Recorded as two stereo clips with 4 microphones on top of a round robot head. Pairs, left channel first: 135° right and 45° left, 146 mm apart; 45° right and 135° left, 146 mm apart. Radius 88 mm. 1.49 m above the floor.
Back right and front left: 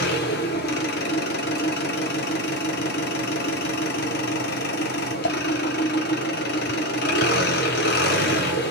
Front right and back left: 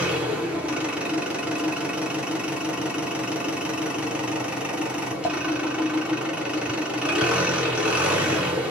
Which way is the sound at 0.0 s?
140° right.